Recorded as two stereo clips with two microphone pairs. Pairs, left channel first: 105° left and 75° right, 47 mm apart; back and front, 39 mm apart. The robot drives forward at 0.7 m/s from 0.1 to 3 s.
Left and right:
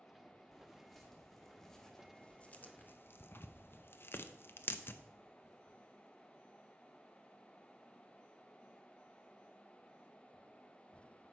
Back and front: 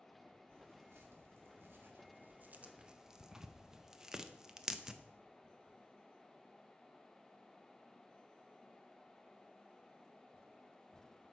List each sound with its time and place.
0.5 s tearing paper: 15° left, 2.0 m; by 5.0 s 75° left, 0.6 m